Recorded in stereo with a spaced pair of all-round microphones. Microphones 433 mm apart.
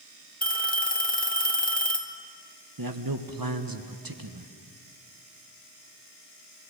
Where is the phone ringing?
20° left (ahead or behind), 1.3 m.